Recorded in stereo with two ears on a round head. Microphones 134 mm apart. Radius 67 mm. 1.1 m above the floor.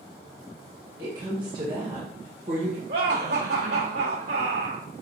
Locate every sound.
1.0 s a woman speaking: 25° right (ahead or behind), 1.6 m; by 2.8 s 50° right (ahead or behind), 1.0 m
2.9 s laughter: 75° right (ahead or behind), 3 m